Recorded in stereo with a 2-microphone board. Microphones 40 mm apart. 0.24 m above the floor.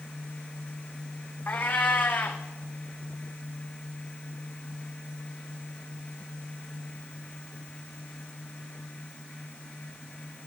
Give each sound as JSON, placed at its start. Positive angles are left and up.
{"t": 1.5, "sound": "a cat meowing", "side_deg": 45, "distance_m": 1.4}